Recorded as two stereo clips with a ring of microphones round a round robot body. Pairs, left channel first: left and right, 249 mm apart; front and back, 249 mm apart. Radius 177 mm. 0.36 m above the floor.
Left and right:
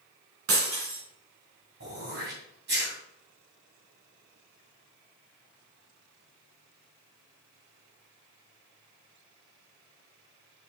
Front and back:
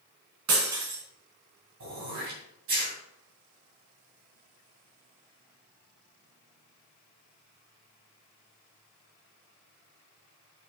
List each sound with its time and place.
0.5 s breaking glass: 140° right, 2 m
1.8 s throat clearing: 145° right, 3 m